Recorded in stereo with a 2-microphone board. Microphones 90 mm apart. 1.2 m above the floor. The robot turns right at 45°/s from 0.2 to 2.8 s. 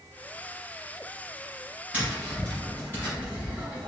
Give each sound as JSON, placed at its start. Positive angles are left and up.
{"t": 1.9, "sound": "tapping", "azimuth_deg": -15, "distance_m": 1.6}